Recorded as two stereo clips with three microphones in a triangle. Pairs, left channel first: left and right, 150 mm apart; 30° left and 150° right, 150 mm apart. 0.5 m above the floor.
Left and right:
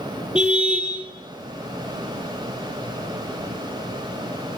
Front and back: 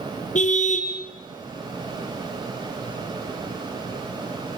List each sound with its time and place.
0.3 s a car horn: 5° right, 5 m